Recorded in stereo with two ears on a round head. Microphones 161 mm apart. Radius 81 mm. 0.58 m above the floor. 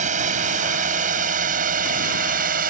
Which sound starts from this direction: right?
A drone, at 0.0 s.